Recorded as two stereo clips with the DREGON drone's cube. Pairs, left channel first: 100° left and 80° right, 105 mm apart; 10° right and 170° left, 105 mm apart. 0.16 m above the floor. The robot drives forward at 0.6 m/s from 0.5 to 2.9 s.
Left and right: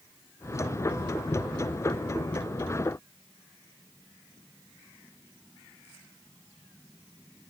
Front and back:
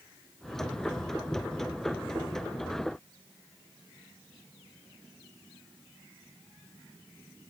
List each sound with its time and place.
Only background noise.